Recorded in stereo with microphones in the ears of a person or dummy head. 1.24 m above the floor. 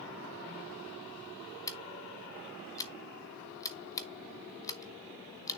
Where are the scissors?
15° left (ahead or behind), 0.8 m.